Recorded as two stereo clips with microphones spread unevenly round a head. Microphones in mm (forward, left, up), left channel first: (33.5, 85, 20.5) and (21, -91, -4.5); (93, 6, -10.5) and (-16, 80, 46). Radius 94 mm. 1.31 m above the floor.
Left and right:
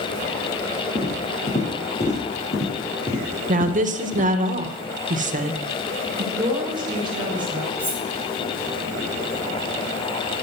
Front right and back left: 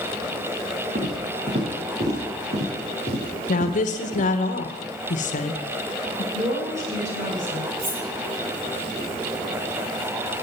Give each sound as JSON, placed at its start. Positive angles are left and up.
{"t": 0.9, "sound": "footsteps", "azimuth_deg": 135, "distance_m": 5.0}
{"t": 3.5, "sound": "a woman speaking", "azimuth_deg": -50, "distance_m": 1.2}
{"t": 6.3, "sound": "a woman speaking", "azimuth_deg": -165, "distance_m": 4.5}
{"t": 7.8, "sound": "cutlery clinking", "azimuth_deg": 160, "distance_m": 3.0}